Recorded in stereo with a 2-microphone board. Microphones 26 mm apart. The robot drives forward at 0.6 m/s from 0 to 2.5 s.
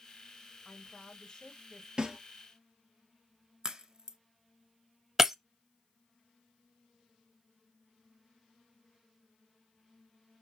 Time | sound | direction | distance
0.7 | a woman speaking | 30° left (ahead or behind) | 1.4 m
2.0 | a snare drum | 30° right (ahead or behind) | 1.0 m
3.6 | a crack | 35° right (ahead or behind) | 0.6 m
5.2 | breaking glass | 20° right (ahead or behind) | 0.6 m